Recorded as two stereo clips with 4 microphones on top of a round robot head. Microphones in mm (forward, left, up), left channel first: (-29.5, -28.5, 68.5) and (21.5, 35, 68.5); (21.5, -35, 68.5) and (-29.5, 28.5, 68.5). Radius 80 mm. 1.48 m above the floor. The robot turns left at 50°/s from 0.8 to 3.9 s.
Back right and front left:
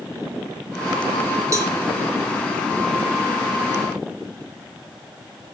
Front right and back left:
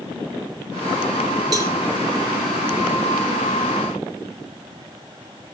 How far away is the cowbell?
About 0.9 m.